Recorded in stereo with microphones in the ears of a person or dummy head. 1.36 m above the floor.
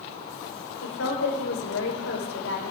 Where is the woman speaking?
85° left, 5 m.